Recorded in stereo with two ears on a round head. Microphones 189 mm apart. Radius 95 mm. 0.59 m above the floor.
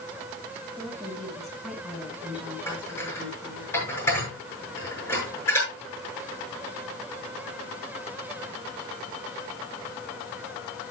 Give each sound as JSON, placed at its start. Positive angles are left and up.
{"t": 0.8, "sound": "a woman speaking", "side_deg": 5, "distance_m": 6.0}
{"t": 2.7, "sound": "dishes clattering", "side_deg": 15, "distance_m": 6.5}